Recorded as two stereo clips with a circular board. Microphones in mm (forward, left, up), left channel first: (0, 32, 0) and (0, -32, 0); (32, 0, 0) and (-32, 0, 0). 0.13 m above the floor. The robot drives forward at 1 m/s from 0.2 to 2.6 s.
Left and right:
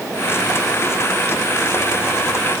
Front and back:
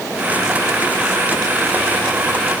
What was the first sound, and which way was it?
Only background noise.